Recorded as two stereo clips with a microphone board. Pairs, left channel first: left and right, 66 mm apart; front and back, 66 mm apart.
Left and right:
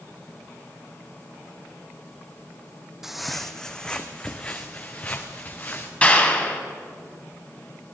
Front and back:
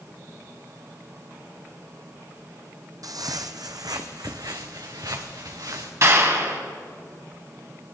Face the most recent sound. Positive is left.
turn(degrees=155)